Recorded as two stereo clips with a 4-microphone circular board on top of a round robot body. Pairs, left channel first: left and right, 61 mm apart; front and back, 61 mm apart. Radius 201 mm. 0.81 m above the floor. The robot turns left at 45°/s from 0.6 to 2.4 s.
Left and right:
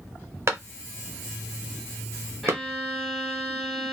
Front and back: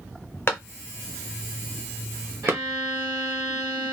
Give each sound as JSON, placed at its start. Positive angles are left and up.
{"t": 0.5, "sound": "a clap", "azimuth_deg": -50, "distance_m": 1.1}
{"t": 2.4, "sound": "a violin", "azimuth_deg": -175, "distance_m": 1.9}